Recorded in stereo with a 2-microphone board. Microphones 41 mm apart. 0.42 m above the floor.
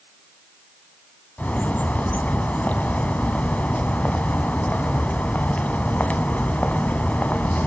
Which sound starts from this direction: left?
A bird, at 1.4 s.